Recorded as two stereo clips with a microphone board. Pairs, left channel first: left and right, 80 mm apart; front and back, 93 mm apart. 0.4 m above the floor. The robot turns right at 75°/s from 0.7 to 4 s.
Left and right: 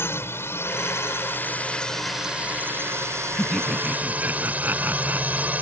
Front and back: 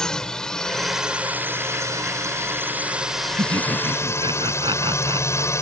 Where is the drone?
75° left; by 5.6 s 30° right.